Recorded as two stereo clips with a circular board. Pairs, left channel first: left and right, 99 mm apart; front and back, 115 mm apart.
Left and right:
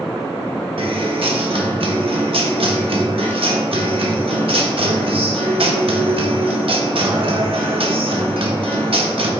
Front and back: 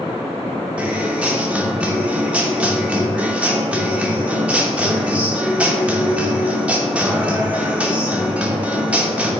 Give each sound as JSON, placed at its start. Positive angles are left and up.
{"t": 0.8, "sound": "a guitar", "azimuth_deg": -100, "distance_m": 1.0}